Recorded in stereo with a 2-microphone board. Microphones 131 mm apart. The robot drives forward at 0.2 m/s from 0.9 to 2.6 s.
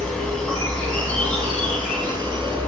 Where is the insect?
5° left (ahead or behind), 1.1 m.